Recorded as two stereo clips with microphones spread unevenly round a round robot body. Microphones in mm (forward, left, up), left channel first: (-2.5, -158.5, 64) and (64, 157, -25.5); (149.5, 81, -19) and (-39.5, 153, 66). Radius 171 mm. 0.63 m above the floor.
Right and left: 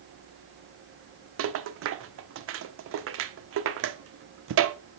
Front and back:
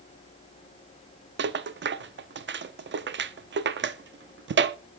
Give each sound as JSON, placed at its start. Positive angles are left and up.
{"t": 1.4, "sound": "a rattle", "azimuth_deg": 110, "distance_m": 0.7}